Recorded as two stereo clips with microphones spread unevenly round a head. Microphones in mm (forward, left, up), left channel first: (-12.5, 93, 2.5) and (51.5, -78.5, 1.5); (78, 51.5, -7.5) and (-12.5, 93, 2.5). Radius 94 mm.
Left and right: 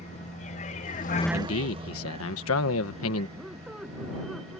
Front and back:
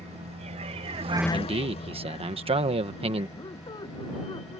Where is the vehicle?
165° left; by 4.6 s 15° right.